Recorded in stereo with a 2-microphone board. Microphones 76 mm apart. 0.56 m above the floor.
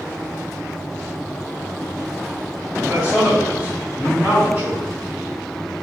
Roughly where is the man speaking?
Centre.